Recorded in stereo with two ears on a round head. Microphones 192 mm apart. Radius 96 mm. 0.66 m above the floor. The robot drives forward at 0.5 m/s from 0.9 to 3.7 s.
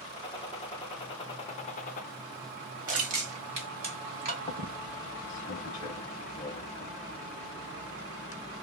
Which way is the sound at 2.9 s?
40° right (ahead or behind).